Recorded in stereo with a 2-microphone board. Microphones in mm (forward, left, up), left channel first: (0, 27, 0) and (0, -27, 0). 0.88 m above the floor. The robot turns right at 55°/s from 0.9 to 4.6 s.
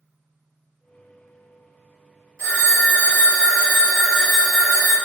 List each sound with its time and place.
2.4 s a phone ringing: 125° right, 1.6 m; by 4.9 s straight ahead, 1.6 m